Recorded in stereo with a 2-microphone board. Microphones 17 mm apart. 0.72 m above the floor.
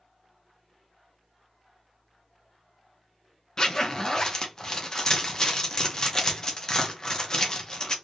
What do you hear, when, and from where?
3.6 s a zipper: 40° left (ahead or behind), 0.7 m